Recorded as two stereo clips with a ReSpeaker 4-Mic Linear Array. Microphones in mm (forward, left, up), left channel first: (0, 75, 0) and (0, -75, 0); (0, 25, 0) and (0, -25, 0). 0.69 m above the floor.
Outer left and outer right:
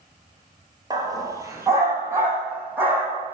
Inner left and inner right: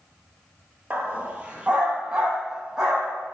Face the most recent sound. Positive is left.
turn(degrees=-10)  # may be behind; listen again after turning